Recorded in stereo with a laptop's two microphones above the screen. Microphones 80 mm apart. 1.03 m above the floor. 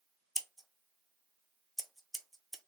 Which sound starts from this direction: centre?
Scissors, at 0.3 s.